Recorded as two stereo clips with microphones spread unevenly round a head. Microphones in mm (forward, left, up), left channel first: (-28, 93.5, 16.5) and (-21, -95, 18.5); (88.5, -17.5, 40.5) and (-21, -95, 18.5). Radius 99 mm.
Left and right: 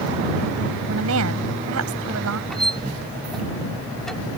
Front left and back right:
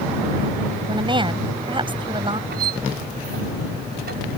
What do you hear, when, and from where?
0.9 s a woman speaking: 90° right
2.5 s a squeak: straight behind